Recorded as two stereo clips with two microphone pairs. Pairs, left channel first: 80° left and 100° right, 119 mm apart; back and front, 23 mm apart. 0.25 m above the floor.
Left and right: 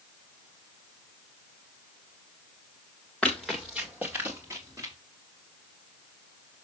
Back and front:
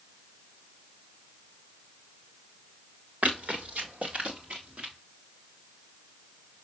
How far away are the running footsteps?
About 1.7 m.